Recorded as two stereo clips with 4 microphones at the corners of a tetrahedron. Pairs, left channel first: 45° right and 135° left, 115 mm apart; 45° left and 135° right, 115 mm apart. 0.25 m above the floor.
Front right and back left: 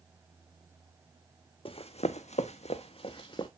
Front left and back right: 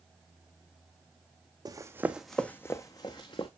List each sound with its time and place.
1.6 s running footsteps: 85° right, 0.7 m; by 3.5 s straight ahead, 1.1 m